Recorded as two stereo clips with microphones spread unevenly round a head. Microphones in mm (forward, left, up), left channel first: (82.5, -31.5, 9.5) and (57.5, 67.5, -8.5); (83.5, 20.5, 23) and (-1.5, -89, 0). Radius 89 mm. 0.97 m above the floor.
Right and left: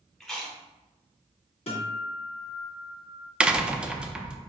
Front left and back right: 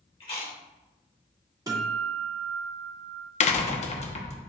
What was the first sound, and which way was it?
Chewing, 10° left.